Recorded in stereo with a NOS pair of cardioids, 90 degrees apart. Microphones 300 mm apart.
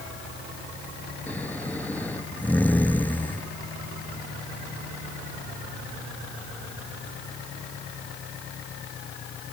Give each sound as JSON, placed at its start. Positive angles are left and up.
{"t": 1.3, "sound": "snoring", "azimuth_deg": 5}